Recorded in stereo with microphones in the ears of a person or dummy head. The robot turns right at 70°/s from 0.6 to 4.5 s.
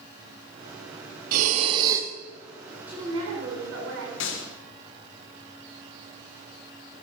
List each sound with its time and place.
1.3 s breathing: 70° right, 0.8 m; by 2.1 s 10° right, 0.8 m
2.9 s a woman speaking: 170° right, 3.5 m; by 4.1 s 85° right, 3.5 m
4.2 s a gunshot: 60° left (ahead or behind), 1.2 m; by 4.5 s 50° left (ahead or behind), 1.2 m